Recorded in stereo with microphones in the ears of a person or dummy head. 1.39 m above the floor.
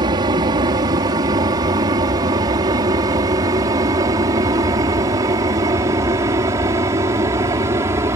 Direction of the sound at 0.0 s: 25° right (ahead or behind).